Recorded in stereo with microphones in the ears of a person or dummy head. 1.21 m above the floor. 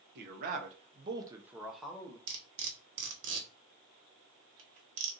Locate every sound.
0.1 s a man speaking: 60° right (ahead or behind), 1.1 m; by 2.2 s 15° left (ahead or behind), 1.0 m
2.3 s cutlery clinking: 75° right (ahead or behind), 1.0 m